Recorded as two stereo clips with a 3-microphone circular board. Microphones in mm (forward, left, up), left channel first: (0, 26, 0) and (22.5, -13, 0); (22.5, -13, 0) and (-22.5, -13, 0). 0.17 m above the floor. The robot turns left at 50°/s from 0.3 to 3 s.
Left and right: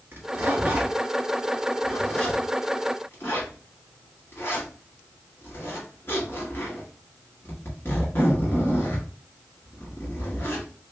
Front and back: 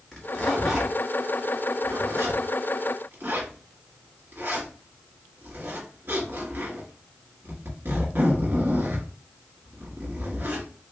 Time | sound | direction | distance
0.1 | a zipper | 75° right | 1.7 m